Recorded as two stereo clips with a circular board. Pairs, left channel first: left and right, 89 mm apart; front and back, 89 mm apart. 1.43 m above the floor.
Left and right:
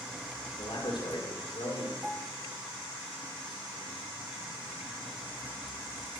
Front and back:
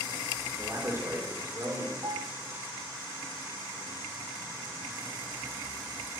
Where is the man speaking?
120° left, 4.5 m.